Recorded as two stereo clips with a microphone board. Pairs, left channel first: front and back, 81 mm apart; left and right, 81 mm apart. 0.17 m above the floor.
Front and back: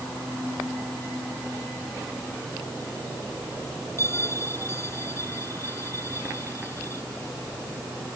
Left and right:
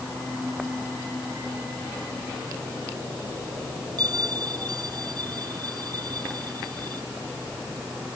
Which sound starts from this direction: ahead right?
A bell, at 4.0 s.